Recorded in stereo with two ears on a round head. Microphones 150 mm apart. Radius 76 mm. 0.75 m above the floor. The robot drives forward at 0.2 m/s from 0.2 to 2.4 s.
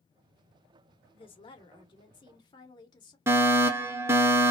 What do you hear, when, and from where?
1.1 s a woman speaking: 35° left (ahead or behind), 1.3 m; by 3.2 s 30° left (ahead or behind), 1.5 m
3.3 s a fire alarm: 15° right (ahead or behind), 1.5 m